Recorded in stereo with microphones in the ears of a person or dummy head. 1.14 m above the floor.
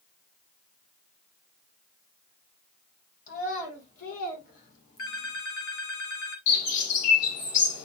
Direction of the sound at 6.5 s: 50° left (ahead or behind).